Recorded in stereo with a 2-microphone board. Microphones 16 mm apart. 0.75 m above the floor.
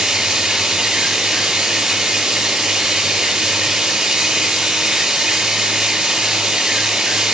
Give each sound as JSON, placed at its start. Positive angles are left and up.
{"t": 0.0, "sound": "running water", "side_deg": -55, "distance_m": 5.5}